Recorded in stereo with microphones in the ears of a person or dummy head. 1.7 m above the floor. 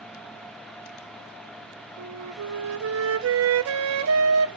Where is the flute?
75° right (ahead or behind), 0.8 m.